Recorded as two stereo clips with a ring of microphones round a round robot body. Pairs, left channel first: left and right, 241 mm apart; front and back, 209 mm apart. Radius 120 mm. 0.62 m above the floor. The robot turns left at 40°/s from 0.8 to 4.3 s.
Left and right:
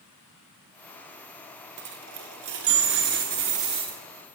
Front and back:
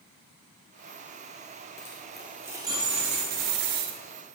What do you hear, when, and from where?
1.8 s a dropped coin: 75° right, 0.9 m; by 4.0 s 160° right, 0.9 m